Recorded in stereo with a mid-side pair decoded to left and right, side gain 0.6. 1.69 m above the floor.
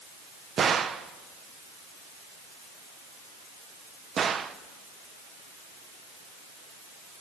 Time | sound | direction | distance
0.6 | a gunshot | 35° right | 1.3 m